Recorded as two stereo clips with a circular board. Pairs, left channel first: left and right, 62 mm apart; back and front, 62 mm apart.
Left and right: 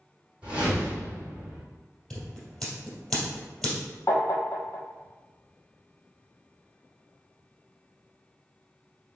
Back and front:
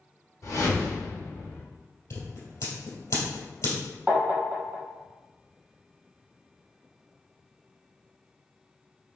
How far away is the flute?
I don't hear a flute.